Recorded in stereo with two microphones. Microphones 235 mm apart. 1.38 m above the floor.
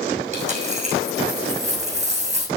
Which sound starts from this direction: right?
A dropped coin, at 0.3 s.